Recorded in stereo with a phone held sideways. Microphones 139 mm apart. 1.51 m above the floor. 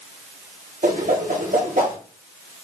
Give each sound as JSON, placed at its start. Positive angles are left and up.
{"t": 0.8, "sound": "a whoosh", "side_deg": -70, "distance_m": 1.0}